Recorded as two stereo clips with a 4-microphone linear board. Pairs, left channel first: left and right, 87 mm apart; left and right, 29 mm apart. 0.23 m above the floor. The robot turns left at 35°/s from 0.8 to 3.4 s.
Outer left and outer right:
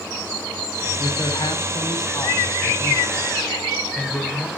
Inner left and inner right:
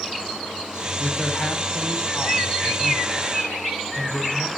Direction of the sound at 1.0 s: 100° left.